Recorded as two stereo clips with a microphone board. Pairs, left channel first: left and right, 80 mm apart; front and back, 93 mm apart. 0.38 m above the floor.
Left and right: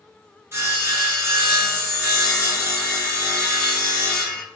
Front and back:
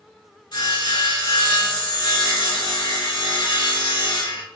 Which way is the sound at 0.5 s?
35° right.